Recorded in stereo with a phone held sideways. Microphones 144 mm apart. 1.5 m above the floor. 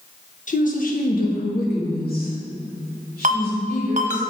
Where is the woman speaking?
55° left (ahead or behind), 1.1 m; by 4.2 s 85° left, 4 m.